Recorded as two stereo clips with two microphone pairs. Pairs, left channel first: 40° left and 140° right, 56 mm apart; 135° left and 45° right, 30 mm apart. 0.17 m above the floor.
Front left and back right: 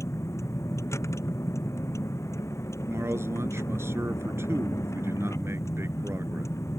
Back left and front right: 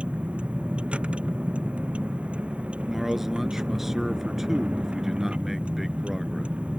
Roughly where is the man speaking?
Behind right.